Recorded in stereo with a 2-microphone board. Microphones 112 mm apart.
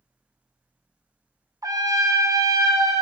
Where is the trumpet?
35° right (ahead or behind), 0.7 m.